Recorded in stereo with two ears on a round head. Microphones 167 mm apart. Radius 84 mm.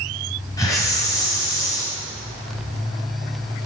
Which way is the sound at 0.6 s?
20° left (ahead or behind).